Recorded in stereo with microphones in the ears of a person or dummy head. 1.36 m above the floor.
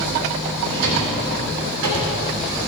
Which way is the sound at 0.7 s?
80° right.